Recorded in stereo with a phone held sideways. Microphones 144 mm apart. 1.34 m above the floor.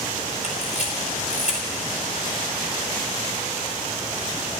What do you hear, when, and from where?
0.4 s a camera shutter: 50° left (ahead or behind), 4 m